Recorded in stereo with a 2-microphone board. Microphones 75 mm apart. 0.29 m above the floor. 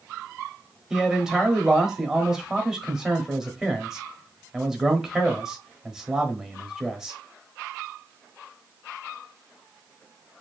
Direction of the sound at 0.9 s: 5° right (ahead or behind).